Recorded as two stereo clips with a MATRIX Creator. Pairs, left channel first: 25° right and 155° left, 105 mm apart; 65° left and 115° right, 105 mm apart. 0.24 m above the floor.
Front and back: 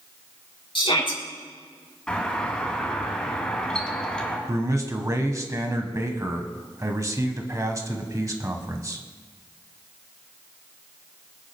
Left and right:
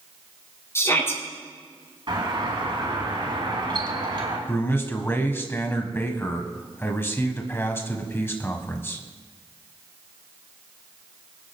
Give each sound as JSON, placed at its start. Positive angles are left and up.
{"t": 0.8, "sound": "a shout", "azimuth_deg": 5, "distance_m": 3.5}
{"t": 2.1, "sound": "a doorbell", "azimuth_deg": -100, "distance_m": 2.5}
{"t": 4.5, "sound": "a man speaking", "azimuth_deg": 120, "distance_m": 1.4}